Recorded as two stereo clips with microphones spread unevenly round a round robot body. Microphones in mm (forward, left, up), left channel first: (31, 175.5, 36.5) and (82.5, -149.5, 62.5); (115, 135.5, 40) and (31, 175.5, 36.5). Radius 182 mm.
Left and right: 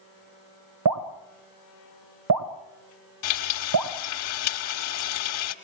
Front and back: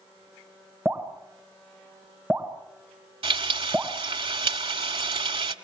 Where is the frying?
140° left, 1.5 m.